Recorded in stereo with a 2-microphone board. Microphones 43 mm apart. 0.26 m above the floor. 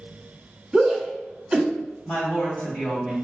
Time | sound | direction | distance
0.7 | a shout | 15° right (ahead or behind) | 1.1 m
2.0 | a woman speaking | 35° left (ahead or behind) | 1.7 m